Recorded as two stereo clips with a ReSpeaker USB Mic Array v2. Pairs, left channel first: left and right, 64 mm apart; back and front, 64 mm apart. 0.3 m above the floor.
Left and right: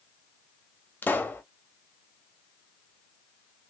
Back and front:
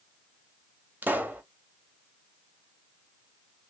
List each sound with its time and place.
1.0 s a pop: 45° left, 0.7 m